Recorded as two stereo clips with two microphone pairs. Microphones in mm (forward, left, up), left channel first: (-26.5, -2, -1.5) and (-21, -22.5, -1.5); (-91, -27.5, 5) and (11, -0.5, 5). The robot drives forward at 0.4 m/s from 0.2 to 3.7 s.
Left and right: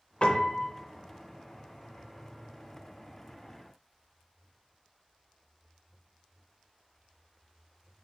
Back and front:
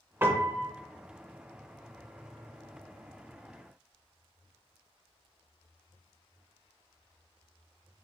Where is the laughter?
No laughter in this recording.